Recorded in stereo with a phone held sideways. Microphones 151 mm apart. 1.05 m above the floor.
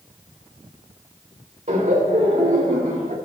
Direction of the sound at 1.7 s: 55° right (ahead or behind).